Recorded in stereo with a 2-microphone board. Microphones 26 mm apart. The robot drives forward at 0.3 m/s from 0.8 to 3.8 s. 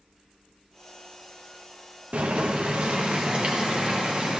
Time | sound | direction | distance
2.1 | boiling | 55° right (ahead or behind) | 0.7 m